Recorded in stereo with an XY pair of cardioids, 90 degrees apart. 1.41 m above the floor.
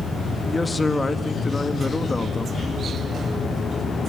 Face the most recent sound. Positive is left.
turn(degrees=25)